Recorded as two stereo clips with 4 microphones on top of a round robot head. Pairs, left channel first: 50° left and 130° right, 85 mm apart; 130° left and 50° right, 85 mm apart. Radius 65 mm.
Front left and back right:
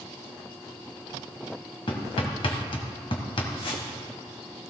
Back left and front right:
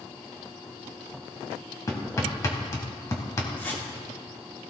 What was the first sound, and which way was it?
Hammering, 80° left.